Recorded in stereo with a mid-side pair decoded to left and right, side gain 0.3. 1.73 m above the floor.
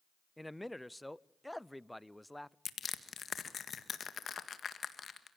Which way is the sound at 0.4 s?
5° left.